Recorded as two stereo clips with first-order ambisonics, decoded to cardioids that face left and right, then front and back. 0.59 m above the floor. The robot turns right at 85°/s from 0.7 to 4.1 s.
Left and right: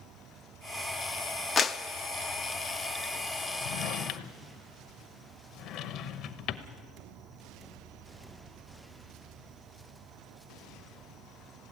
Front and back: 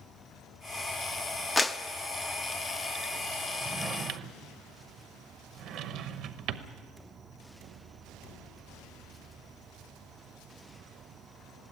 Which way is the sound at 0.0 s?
60° right.